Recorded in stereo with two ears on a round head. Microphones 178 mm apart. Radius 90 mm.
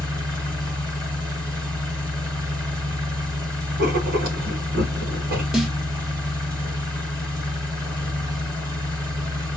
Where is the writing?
50° right (ahead or behind), 1.1 m.